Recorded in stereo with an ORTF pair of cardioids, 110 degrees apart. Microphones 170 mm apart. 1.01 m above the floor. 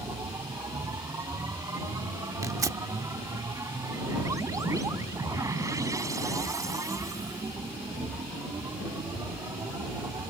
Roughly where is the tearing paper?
Ahead.